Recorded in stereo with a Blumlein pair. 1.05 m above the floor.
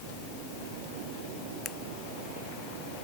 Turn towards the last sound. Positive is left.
turn(degrees=25)